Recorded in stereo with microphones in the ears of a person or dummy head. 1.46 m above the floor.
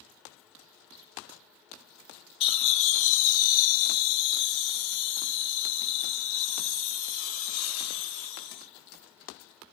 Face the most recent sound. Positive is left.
turn(degrees=85)